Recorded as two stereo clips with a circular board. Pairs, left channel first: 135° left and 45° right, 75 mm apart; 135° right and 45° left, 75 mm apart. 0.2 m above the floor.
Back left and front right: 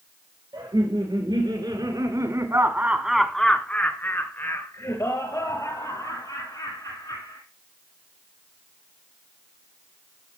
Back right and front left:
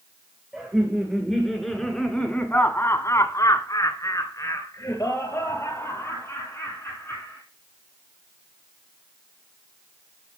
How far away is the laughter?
About 3.5 m.